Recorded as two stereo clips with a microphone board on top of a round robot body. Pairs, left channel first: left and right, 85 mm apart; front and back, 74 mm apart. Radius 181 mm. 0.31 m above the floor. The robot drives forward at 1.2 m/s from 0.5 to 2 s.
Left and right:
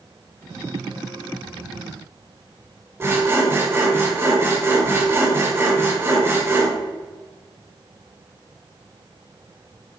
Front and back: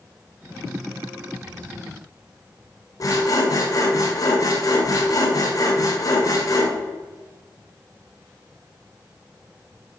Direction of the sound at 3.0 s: 35° right.